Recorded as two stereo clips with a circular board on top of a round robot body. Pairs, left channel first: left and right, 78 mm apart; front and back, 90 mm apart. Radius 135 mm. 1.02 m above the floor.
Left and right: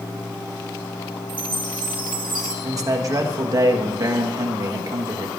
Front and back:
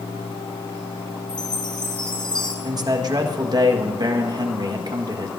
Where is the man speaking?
135° right, 1.4 m.